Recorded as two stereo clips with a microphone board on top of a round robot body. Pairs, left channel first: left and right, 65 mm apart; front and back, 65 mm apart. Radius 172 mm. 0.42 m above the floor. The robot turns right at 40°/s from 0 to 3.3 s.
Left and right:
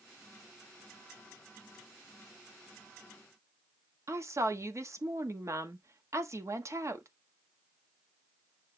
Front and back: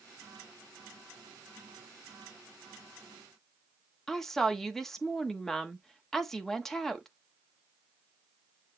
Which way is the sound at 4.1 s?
85° right.